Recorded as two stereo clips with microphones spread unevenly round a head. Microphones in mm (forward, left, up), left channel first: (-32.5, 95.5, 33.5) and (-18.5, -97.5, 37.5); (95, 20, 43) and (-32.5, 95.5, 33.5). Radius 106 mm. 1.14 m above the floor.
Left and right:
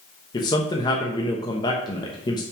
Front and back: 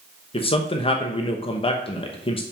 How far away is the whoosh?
I don't hear a whoosh.